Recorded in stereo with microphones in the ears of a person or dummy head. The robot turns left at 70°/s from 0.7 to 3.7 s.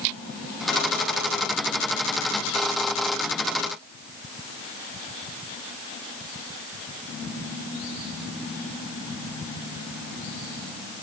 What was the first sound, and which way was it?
Only background noise.